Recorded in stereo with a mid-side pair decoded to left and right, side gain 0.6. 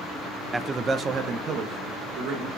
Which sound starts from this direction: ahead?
A man speaking, at 0.5 s.